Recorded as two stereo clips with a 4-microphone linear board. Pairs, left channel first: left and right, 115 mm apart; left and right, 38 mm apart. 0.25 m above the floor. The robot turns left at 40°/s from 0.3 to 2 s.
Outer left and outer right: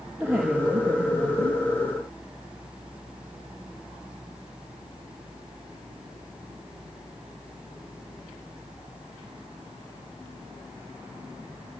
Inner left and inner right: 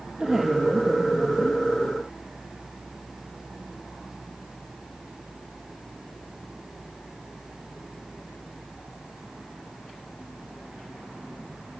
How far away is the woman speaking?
About 5.5 m.